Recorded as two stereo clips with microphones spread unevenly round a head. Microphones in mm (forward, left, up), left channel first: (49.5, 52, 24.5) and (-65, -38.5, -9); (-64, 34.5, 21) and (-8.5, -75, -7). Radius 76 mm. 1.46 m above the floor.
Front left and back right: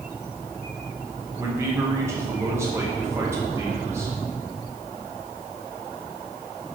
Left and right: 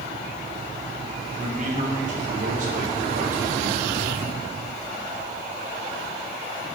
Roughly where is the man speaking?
Right.